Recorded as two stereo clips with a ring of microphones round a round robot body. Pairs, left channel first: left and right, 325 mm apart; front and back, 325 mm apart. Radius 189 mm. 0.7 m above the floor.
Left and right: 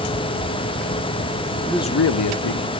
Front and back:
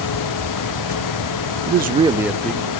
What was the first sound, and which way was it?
A man speaking, 165° right.